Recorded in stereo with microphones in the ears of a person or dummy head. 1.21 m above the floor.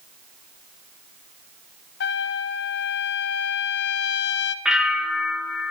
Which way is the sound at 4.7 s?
Centre (ahead or behind).